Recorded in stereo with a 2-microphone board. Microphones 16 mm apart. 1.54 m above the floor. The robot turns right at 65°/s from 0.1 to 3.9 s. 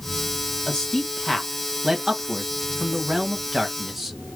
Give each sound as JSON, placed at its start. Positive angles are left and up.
{"t": 0.7, "sound": "a man speaking", "side_deg": 50, "distance_m": 1.2}